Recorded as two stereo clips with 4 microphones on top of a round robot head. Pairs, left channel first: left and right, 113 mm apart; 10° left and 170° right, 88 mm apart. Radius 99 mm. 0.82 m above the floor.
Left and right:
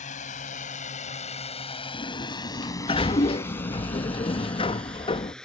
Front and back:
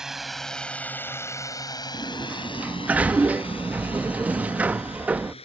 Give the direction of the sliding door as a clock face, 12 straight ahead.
8 o'clock.